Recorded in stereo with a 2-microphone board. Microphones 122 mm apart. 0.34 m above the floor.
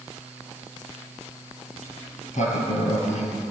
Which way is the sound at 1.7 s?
80° left.